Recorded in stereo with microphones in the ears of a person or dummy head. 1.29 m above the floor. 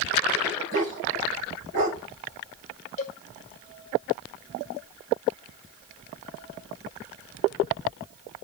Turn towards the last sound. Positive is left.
turn(degrees=35)  # may be behind; listen again after turning